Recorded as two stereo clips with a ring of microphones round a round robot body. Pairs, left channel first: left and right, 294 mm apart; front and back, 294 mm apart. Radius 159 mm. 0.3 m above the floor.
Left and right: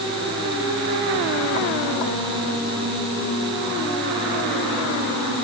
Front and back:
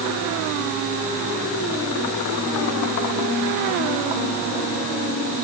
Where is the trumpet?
I don't hear a trumpet.